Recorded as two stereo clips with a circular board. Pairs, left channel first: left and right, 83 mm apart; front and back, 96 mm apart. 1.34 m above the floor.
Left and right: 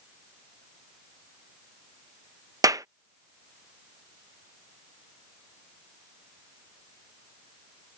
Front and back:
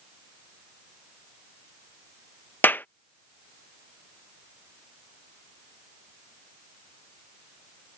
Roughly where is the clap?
Ahead right.